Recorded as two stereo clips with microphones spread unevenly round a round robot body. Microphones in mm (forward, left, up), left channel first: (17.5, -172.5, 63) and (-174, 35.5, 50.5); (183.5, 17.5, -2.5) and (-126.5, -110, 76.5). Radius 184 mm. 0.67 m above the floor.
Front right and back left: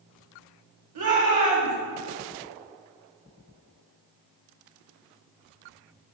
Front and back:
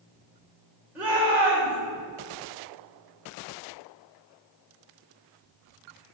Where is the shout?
115° left, 2.5 m.